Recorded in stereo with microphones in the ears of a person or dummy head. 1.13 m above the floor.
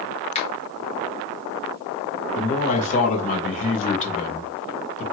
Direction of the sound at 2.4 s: 35° left (ahead or behind).